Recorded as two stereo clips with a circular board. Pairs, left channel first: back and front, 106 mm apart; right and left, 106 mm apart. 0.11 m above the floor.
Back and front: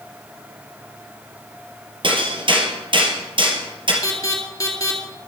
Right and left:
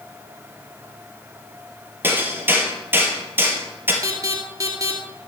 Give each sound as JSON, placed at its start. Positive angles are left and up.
{"t": 2.0, "sound": "hammering", "azimuth_deg": 25, "distance_m": 3.0}
{"t": 4.0, "sound": "an alarm", "azimuth_deg": 135, "distance_m": 2.5}